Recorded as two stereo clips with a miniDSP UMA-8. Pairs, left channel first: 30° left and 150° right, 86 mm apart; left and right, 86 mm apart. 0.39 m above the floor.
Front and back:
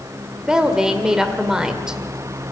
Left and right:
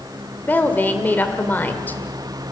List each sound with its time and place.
0.5 s a woman speaking: 135° left, 1.4 m